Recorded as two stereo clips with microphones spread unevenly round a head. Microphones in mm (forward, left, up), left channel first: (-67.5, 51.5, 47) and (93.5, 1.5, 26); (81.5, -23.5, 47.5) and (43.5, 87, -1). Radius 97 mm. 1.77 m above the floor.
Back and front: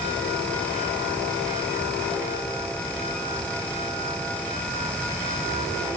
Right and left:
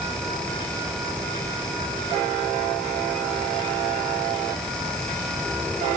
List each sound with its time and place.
Only background noise.